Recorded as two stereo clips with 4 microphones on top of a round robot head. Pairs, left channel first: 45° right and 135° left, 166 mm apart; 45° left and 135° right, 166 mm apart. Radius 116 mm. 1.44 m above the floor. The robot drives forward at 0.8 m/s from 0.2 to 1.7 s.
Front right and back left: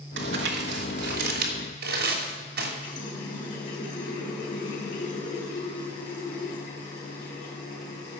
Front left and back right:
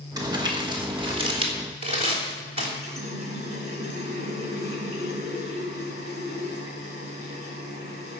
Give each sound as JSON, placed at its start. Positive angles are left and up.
{"t": 0.2, "sound": "crumpling", "azimuth_deg": 155, "distance_m": 1.9}
{"t": 2.8, "sound": "a running tap", "azimuth_deg": -90, "distance_m": 4.0}